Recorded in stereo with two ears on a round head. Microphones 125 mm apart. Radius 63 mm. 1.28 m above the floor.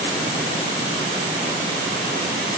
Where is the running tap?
No running tap in this recording.